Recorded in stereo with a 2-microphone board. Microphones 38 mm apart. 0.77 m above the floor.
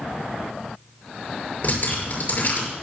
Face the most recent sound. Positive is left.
turn(degrees=45)  # may be behind; listen again after turning